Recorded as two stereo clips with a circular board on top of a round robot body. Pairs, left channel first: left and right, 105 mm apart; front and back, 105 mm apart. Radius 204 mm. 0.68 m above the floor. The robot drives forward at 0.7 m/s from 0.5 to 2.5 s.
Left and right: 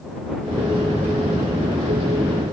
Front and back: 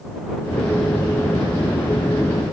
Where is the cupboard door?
I don't hear a cupboard door.